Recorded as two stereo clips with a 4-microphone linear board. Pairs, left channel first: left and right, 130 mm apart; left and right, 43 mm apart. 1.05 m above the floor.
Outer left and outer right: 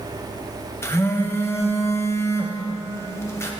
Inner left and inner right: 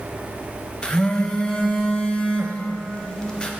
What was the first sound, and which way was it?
A phone buzzing, 20° left (ahead or behind).